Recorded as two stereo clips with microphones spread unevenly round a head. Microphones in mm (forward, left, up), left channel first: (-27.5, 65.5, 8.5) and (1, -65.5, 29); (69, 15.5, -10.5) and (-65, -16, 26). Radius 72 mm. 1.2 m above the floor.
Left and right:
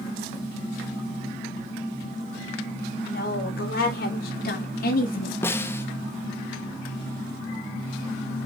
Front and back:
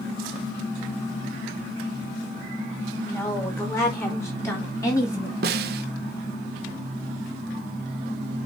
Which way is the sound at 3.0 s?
85° left.